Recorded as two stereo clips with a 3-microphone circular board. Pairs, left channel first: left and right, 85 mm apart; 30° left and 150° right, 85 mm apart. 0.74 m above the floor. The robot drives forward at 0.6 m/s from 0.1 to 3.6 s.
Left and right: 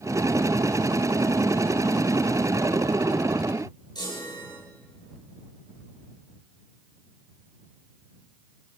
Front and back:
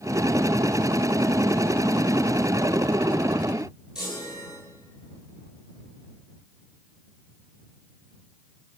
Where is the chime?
125° left, 10 m.